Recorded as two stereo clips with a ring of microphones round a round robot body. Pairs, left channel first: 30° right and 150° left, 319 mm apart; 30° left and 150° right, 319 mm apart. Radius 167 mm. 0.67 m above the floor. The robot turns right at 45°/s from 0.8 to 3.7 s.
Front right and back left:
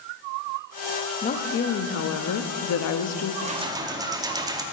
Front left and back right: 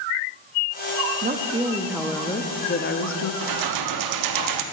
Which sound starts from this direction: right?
A woman speaking, at 1.2 s.